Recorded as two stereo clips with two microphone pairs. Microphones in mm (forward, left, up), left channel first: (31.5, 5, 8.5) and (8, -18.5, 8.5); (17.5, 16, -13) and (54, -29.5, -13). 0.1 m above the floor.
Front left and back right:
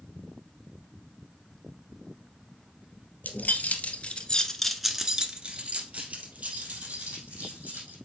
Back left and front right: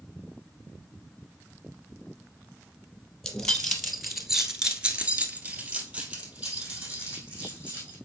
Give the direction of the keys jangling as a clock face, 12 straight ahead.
10 o'clock.